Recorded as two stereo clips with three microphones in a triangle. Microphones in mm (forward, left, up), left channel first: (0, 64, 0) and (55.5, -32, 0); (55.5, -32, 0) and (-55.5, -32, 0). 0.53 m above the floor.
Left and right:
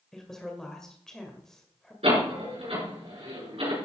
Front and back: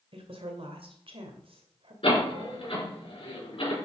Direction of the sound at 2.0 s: 35° right.